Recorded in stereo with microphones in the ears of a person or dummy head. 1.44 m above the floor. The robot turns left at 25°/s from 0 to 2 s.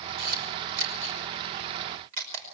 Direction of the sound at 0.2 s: 60° right (ahead or behind).